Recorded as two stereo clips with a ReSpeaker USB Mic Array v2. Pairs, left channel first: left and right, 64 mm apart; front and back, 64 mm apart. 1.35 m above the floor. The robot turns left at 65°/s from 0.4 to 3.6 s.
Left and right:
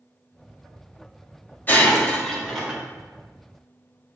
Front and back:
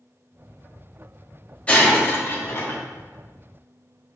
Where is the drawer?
I don't hear a drawer.